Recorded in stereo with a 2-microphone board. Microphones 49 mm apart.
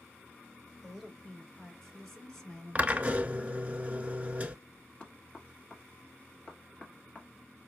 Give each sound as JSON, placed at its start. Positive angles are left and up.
{"t": 0.8, "sound": "a woman speaking", "side_deg": 0, "distance_m": 1.8}
{"t": 2.8, "sound": "a drill", "side_deg": -30, "distance_m": 0.6}
{"t": 5.0, "sound": "knocking", "side_deg": 25, "distance_m": 1.4}